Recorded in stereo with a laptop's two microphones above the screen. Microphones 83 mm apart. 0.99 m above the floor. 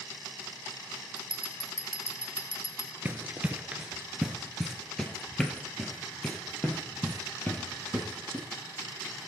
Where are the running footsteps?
25° right (ahead or behind), 1.0 m; by 8.4 s 20° left (ahead or behind), 2.5 m.